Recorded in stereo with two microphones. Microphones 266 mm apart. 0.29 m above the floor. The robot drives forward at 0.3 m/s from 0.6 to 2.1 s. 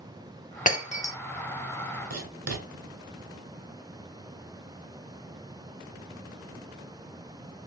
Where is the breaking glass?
30° left (ahead or behind), 0.5 m; by 1.1 s 25° left (ahead or behind), 0.6 m.